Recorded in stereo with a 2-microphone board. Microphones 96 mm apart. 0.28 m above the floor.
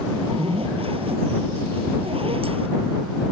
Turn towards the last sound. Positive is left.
turn(degrees=-80)